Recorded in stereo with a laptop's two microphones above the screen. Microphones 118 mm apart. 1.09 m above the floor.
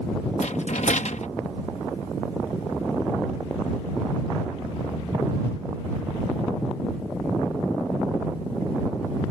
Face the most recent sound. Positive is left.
turn(degrees=85)